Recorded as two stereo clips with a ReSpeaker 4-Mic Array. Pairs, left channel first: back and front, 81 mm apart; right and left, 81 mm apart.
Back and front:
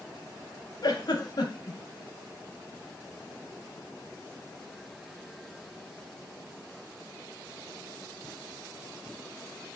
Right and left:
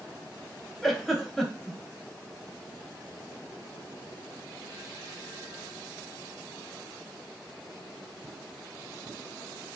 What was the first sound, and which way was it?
A giggle, straight behind.